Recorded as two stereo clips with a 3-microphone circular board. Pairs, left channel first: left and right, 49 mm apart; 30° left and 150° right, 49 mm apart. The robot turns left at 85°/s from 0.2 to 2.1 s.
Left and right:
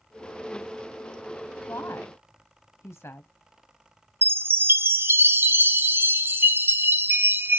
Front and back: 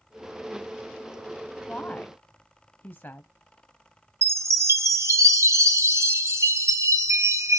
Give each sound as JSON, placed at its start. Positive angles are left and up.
{"t": 1.7, "sound": "a woman speaking", "azimuth_deg": 100, "distance_m": 0.8}
{"t": 4.2, "sound": "a chime", "azimuth_deg": -135, "distance_m": 0.8}